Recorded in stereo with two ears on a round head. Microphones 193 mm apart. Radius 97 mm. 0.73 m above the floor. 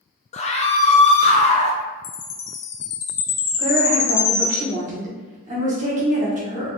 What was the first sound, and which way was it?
A scream, 30° left (ahead or behind).